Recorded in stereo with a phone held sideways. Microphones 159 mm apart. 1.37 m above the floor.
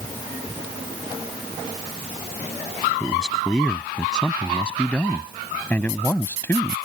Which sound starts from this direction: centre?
A man speaking, at 3.0 s.